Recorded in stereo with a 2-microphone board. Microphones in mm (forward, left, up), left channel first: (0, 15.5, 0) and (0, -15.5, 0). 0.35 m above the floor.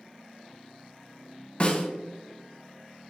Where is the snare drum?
30° left (ahead or behind), 1.4 m.